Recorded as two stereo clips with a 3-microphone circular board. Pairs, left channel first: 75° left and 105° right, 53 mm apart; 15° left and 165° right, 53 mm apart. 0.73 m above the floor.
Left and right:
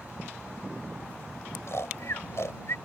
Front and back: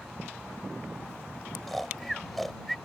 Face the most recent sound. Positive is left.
turn(degrees=100)